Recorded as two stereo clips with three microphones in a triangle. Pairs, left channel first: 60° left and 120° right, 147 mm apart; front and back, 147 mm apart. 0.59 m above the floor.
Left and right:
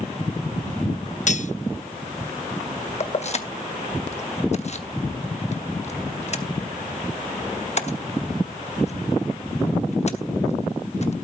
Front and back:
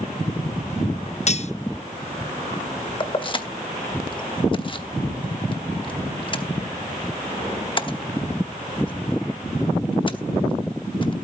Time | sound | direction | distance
1.3 | cutlery clinking | 35° left | 0.5 m
3.0 | keys jangling | 45° left | 0.9 m